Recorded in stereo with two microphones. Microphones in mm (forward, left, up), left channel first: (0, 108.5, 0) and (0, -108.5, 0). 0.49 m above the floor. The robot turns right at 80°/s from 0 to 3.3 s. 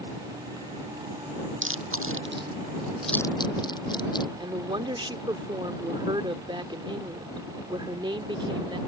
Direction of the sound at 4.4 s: 20° right (ahead or behind).